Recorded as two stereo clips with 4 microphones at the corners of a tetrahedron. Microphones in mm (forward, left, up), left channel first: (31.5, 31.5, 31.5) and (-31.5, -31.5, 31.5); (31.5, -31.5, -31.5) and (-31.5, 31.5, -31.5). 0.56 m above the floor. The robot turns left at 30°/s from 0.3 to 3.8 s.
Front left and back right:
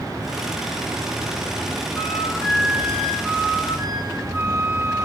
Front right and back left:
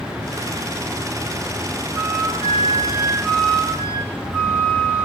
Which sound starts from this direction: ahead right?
A flute, at 1.9 s.